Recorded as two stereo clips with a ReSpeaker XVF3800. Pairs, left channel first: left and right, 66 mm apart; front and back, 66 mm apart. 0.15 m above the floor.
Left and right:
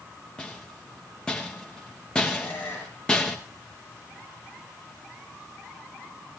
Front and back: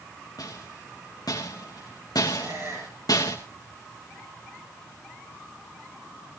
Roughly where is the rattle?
Ahead.